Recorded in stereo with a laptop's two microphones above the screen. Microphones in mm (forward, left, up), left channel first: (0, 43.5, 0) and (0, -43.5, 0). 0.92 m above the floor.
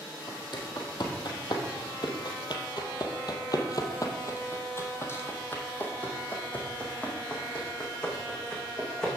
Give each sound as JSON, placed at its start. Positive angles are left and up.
{"t": 0.3, "sound": "footsteps", "side_deg": 55, "distance_m": 2.0}